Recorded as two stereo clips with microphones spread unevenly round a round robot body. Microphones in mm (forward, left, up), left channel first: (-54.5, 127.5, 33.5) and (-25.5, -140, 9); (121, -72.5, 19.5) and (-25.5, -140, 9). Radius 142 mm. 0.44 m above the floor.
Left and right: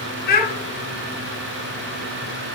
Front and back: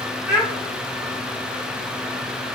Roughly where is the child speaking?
Behind left.